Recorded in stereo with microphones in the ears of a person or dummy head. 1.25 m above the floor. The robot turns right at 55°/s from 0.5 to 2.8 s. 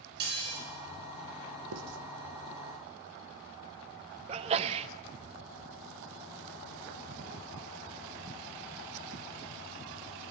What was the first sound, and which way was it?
Dishes clattering, 55° right (ahead or behind).